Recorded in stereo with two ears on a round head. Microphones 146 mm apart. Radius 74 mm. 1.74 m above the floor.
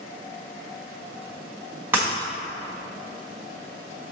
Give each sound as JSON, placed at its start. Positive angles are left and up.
{"t": 1.9, "sound": "breaking glass", "side_deg": -15, "distance_m": 1.6}